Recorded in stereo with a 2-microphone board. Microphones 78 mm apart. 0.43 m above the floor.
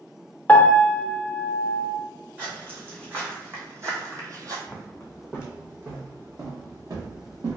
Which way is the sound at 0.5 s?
20° left (ahead or behind).